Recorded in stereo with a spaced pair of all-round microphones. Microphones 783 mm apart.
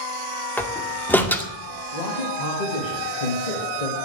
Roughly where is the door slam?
Centre.